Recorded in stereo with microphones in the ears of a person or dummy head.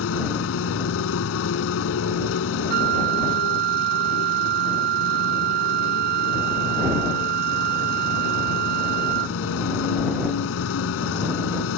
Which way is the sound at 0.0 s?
80° left.